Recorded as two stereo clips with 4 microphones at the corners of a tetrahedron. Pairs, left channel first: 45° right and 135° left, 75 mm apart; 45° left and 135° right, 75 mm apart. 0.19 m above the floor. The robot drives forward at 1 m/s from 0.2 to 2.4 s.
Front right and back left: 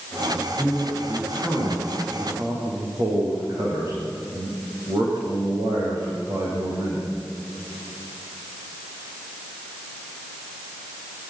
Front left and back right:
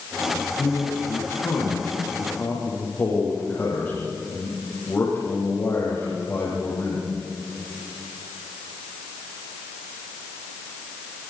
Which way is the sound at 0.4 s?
95° left.